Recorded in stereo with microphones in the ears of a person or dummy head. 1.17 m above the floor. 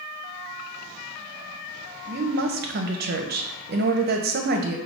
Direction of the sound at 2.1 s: 50° right (ahead or behind).